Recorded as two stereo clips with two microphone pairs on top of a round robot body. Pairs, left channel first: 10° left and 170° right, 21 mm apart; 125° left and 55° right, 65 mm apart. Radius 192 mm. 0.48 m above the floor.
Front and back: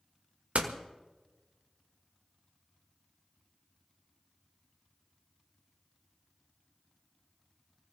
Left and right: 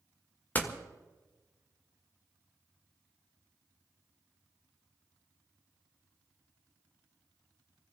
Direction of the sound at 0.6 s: 175° right.